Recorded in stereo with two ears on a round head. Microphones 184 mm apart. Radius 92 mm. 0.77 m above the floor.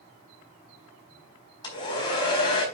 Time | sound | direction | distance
1.6 | a hair dryer | 25° left (ahead or behind) | 4 m